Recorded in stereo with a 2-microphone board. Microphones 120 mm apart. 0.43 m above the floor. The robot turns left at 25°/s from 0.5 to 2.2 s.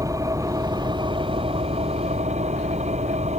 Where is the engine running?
30° right; by 3.4 s 70° right.